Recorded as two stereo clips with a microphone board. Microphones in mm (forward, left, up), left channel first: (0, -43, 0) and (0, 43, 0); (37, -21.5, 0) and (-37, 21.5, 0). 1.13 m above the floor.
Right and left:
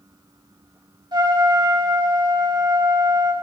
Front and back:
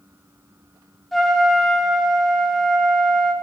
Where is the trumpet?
60° left, 1.4 m.